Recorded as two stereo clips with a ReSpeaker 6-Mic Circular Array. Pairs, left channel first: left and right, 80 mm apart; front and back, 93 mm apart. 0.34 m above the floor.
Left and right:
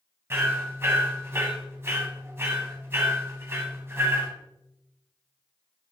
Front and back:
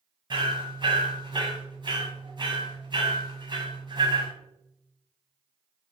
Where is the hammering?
150° right, 1.5 m.